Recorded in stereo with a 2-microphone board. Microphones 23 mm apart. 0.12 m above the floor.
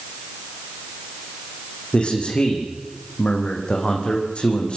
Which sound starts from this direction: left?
A man speaking, at 1.9 s.